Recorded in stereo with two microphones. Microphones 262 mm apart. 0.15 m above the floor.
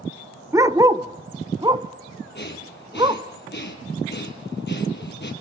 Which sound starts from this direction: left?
Breathing, at 2.4 s.